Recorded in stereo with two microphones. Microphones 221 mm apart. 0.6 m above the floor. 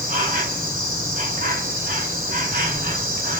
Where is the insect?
40° right (ahead or behind), 4 m.